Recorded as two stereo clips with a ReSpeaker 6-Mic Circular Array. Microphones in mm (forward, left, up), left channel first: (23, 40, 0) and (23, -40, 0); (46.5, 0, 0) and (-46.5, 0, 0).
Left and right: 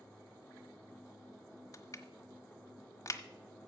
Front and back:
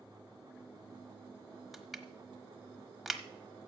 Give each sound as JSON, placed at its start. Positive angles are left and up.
{"t": 1.7, "sound": "crushing", "azimuth_deg": 90, "distance_m": 1.1}